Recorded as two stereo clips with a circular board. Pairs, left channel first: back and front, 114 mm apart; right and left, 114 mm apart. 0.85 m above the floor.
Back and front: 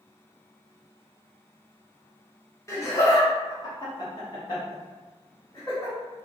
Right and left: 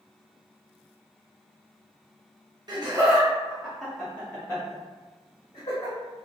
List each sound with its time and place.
2.7 s laughter: 125° left, 1.0 m; by 6.0 s 115° right, 1.5 m